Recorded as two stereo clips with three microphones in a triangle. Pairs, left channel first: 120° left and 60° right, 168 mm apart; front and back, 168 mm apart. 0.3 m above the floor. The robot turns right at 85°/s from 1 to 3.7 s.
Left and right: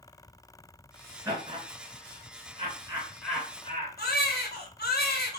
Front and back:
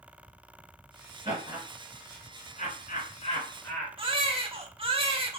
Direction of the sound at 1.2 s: 130° right.